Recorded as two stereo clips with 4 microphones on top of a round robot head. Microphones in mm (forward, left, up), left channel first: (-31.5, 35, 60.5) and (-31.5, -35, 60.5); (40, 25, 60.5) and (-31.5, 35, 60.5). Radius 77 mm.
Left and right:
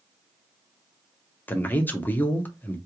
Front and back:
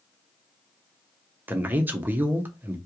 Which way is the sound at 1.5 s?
130° left.